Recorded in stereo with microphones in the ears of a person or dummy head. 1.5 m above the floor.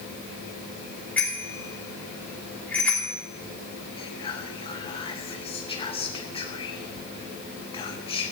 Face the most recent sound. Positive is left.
turn(degrees=20)  # may be behind; listen again after turning